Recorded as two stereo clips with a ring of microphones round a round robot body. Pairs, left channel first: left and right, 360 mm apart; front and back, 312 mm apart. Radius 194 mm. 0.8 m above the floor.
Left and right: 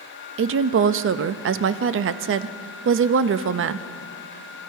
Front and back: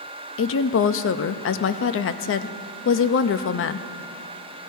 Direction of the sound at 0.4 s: 40° right.